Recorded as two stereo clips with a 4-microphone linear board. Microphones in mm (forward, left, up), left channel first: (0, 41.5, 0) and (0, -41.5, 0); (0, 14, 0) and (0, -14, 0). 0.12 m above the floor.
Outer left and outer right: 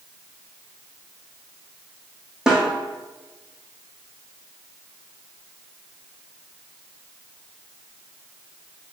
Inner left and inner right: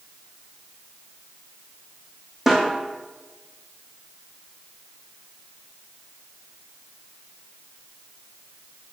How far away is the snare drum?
About 2.5 m.